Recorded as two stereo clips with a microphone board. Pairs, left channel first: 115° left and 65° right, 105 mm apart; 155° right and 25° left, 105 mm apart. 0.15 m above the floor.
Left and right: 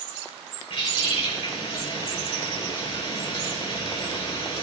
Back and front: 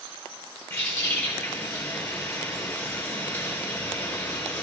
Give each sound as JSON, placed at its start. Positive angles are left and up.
{"t": 0.7, "sound": "a bird", "azimuth_deg": 140, "distance_m": 3.0}